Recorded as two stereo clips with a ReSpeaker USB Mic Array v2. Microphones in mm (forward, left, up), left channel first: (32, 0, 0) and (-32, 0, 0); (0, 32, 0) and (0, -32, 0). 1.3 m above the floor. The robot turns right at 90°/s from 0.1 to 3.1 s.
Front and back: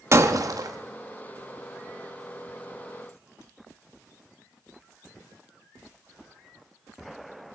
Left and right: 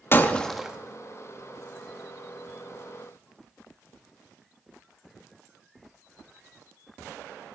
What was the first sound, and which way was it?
Breaking glass, 140° left.